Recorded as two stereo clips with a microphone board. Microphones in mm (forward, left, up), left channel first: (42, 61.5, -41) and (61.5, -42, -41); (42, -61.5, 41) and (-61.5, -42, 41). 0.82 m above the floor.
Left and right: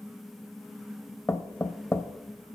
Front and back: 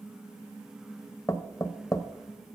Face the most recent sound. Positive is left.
turn(degrees=35)